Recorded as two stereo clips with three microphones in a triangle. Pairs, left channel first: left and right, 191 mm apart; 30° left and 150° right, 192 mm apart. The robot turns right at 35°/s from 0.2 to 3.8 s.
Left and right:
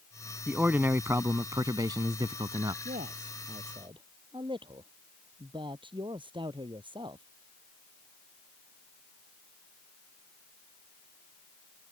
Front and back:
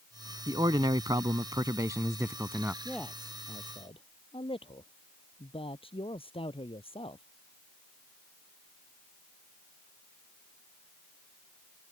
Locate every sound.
0.5 s a man speaking: 160° right; by 2.8 s 80° right
2.9 s a man speaking: 60° right; by 7.2 s 30° right